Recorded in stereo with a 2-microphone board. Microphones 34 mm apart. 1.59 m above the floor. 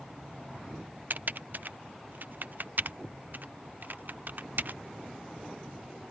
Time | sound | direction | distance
1.1 | typing on a keyboard | 65° right (ahead or behind) | ?